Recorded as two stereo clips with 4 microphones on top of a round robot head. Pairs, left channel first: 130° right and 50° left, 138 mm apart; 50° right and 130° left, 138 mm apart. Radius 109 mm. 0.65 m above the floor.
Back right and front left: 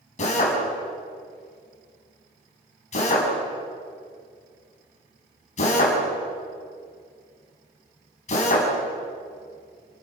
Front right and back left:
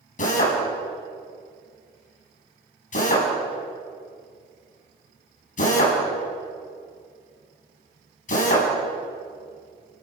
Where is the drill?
85° right, 6 m.